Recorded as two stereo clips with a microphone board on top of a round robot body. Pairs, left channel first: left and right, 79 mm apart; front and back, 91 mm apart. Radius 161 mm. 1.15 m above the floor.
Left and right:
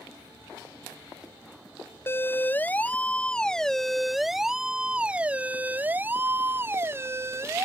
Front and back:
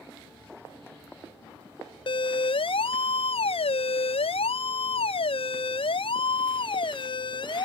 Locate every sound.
2.1 s a siren: 30° left; by 7.7 s 35° right